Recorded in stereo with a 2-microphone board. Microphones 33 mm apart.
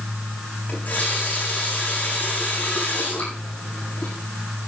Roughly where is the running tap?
Left.